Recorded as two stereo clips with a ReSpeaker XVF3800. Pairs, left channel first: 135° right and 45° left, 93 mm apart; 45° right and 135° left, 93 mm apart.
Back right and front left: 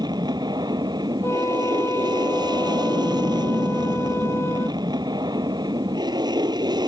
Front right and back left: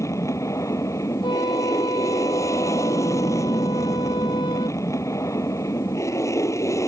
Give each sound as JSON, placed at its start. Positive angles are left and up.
{"t": 0.0, "sound": "an aircraft", "azimuth_deg": 10}
{"t": 1.2, "sound": "a flute", "azimuth_deg": -75}